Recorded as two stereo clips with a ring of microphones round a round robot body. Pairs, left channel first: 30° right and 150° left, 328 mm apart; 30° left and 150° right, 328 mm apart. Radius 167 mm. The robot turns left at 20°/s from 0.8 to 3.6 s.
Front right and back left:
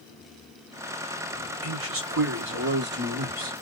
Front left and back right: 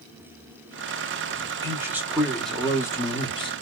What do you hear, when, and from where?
1.6 s a man speaking: 135° left, 1.2 m; by 3.5 s 95° left, 1.2 m